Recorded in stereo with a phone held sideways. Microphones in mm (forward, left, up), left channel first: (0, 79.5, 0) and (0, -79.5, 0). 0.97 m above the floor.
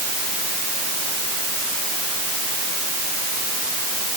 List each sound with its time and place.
Only background noise.